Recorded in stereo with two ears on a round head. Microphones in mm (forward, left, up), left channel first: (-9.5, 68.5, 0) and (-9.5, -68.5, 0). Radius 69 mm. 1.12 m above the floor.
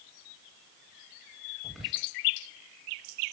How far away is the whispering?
About 2.5 m.